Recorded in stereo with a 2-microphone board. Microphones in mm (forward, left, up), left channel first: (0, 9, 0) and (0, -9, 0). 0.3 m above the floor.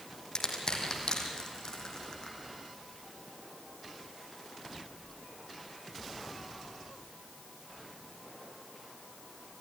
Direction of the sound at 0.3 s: 40° left (ahead or behind).